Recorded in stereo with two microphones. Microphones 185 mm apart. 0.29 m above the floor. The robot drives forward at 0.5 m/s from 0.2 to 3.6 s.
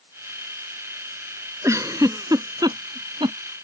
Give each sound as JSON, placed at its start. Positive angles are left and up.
{"t": 1.6, "sound": "a giggle", "side_deg": -15}